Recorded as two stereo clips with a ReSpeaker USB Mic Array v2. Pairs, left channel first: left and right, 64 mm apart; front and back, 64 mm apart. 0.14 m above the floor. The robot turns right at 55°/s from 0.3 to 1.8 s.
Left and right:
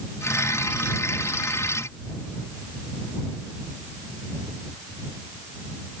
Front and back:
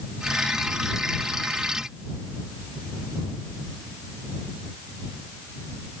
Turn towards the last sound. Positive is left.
No sound to turn to.